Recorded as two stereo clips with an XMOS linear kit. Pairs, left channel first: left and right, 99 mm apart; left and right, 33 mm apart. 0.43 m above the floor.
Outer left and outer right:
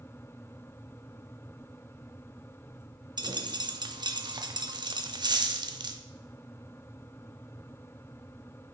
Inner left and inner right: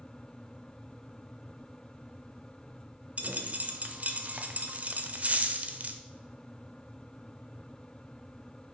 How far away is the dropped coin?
About 0.6 m.